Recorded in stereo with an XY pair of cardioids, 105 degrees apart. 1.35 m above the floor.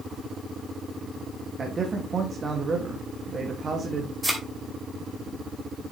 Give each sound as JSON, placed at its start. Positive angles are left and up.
{"t": 1.6, "sound": "a man speaking", "azimuth_deg": -35, "distance_m": 2.0}
{"t": 4.2, "sound": "a thud", "azimuth_deg": -5, "distance_m": 2.5}